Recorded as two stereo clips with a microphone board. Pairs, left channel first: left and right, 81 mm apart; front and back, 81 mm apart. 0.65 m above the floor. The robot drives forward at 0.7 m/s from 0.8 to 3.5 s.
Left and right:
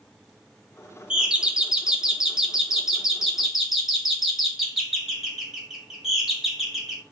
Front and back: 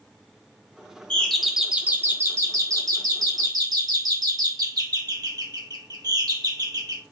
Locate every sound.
1.1 s a doorbell: 40° right, 0.9 m; by 7.0 s 175° right, 1.7 m